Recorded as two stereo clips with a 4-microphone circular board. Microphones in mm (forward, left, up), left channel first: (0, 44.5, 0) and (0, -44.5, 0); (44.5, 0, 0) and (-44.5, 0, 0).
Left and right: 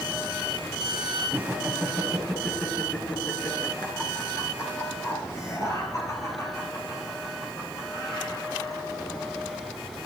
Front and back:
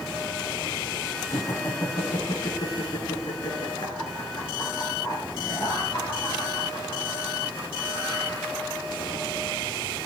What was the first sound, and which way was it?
Laughter, 30° right.